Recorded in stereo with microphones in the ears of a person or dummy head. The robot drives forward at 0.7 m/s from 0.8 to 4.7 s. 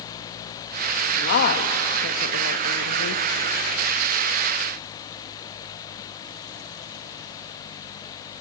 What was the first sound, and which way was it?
A woman speaking, 50° left (ahead or behind).